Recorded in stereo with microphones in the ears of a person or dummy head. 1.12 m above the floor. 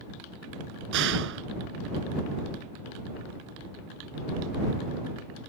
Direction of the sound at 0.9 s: 70° right (ahead or behind).